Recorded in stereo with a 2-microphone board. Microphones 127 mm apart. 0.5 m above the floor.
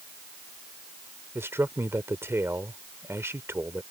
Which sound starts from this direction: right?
A man speaking, at 1.4 s.